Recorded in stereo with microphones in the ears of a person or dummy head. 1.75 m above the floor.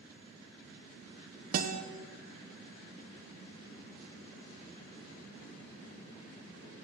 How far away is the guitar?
About 1.4 m.